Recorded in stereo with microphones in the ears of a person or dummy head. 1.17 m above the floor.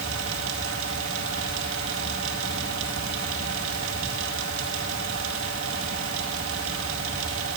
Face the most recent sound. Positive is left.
turn(degrees=-80)